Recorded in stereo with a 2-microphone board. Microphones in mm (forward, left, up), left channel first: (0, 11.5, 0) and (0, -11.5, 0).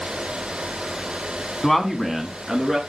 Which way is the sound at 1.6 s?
15° left (ahead or behind).